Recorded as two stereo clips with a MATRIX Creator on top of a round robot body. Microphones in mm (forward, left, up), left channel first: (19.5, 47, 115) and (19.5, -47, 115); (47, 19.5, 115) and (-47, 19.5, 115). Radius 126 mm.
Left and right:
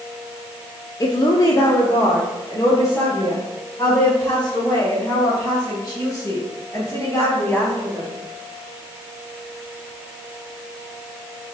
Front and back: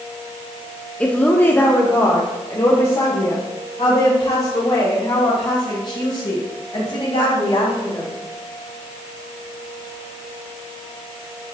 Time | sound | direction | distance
1.0 | a woman speaking | 75° left | 1.3 m